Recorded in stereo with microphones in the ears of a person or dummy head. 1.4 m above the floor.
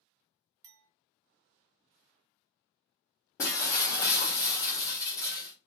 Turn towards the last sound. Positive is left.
turn(degrees=15)  # may be behind; listen again after turning